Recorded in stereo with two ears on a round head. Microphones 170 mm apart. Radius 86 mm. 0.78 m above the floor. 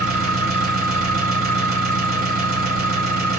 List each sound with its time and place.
0.0 s an engine running: 50° right (ahead or behind), 2.5 m